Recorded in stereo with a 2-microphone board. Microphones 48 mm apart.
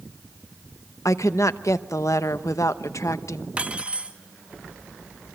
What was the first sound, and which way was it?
A woman speaking, 90° left.